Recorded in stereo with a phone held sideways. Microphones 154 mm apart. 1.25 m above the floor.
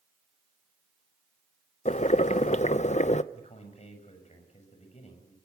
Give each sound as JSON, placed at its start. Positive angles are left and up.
{"t": 1.9, "sound": "boiling", "side_deg": 50, "distance_m": 0.7}
{"t": 3.3, "sound": "a man speaking", "side_deg": 45, "distance_m": 6.5}